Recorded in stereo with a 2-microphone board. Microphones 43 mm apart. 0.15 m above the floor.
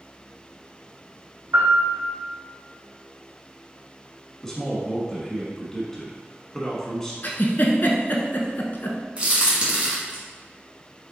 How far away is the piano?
About 1.8 m.